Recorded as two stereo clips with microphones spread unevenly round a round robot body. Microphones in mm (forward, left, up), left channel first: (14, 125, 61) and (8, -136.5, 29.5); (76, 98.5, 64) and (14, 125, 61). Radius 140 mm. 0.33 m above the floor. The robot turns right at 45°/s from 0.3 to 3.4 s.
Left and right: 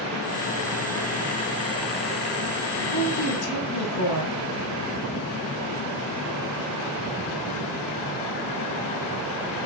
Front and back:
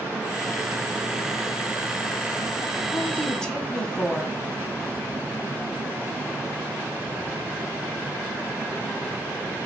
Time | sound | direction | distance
2.9 | a woman speaking | 35° left | 2.5 m